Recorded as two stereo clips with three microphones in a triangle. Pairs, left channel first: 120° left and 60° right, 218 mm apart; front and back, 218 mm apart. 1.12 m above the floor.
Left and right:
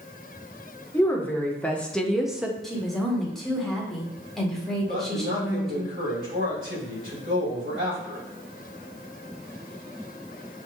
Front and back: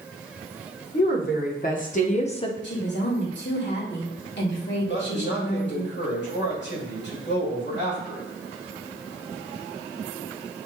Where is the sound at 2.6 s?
30° left, 1.6 m.